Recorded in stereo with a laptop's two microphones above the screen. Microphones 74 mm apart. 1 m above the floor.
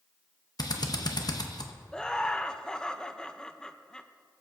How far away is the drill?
About 0.8 m.